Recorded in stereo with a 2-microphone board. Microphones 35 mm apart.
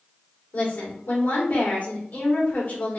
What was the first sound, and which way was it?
A woman speaking, 60° left (ahead or behind).